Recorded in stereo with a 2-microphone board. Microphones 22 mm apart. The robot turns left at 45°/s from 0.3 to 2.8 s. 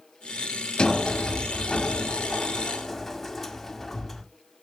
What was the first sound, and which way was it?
A sliding door, 105° left.